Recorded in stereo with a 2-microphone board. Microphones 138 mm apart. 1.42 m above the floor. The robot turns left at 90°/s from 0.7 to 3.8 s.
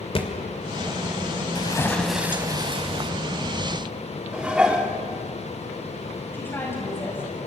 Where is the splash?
50° left, 1.7 m; by 3.1 s 90° right, 1.7 m.